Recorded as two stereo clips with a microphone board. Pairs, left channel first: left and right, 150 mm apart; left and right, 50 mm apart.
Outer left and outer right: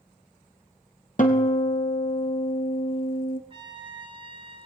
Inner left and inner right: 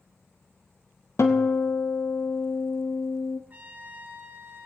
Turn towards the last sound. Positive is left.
turn(degrees=-35)  # may be behind; listen again after turning